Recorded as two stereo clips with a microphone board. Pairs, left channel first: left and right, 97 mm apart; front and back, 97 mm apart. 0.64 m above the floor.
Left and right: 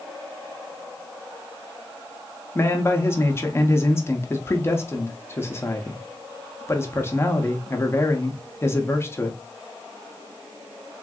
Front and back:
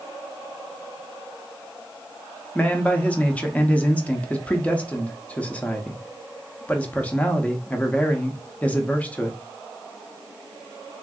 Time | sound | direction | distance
2.5 | a man speaking | 60° left | 0.6 m